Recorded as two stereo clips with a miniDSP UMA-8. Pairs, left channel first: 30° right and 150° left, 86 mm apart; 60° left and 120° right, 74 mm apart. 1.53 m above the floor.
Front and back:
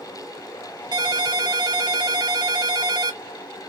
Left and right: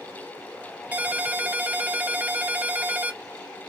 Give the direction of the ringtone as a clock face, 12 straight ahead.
6 o'clock.